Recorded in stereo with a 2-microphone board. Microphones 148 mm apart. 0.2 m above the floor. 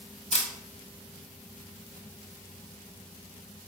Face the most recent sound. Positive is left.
turn(degrees=50)  # may be behind; listen again after turning